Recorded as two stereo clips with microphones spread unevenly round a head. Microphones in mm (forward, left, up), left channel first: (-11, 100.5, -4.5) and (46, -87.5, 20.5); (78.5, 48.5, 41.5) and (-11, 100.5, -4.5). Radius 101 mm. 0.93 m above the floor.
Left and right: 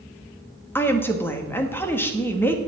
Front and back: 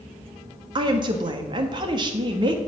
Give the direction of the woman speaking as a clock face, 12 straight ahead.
6 o'clock.